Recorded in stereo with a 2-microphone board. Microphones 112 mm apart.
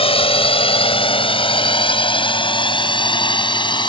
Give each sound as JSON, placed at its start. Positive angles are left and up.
{"t": 0.0, "sound": "a drone", "side_deg": 60}